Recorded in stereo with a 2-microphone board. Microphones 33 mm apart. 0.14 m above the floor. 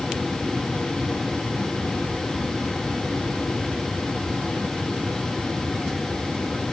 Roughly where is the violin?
I don't hear a violin.